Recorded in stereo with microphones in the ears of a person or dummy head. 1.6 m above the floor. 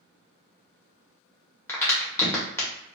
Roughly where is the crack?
Centre.